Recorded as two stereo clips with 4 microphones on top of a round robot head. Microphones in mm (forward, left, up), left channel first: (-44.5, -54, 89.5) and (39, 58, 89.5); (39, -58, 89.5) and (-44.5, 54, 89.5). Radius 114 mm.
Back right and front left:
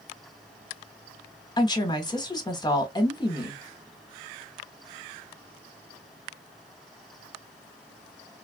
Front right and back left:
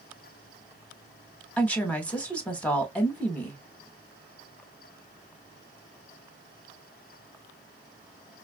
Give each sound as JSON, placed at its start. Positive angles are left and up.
{"t": 1.6, "sound": "a woman speaking", "azimuth_deg": -125, "distance_m": 1.1}